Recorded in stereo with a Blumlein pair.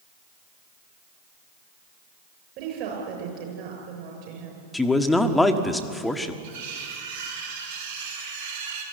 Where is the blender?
No blender in this recording.